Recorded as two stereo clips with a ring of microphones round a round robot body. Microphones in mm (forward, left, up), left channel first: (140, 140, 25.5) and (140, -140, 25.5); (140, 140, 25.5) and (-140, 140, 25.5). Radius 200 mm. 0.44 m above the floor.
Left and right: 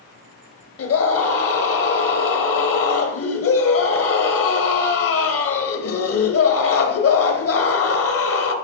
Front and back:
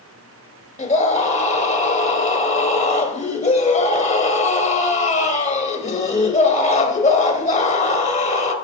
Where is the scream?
60° left, 2.0 m.